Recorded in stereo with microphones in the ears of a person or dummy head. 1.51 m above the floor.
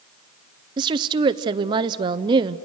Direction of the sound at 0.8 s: 25° right (ahead or behind).